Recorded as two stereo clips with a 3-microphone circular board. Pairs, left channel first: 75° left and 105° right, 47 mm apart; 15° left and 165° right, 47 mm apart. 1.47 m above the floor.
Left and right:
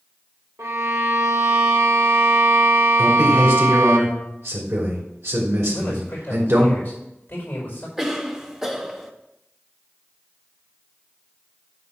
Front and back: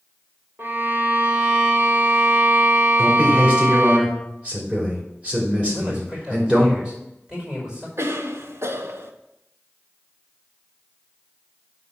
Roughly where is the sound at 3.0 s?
Right.